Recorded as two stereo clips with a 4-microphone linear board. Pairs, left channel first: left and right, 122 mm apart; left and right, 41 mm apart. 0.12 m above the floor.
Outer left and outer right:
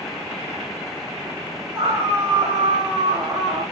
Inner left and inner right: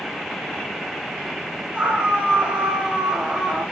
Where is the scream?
25° right (ahead or behind), 6.5 m; by 3.6 s 20° right (ahead or behind), 5 m.